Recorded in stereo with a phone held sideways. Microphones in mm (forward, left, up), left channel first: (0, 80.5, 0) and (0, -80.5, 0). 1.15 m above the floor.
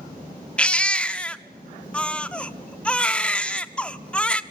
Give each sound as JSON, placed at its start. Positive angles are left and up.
{"t": 0.6, "sound": "a baby crying", "side_deg": 5, "distance_m": 0.8}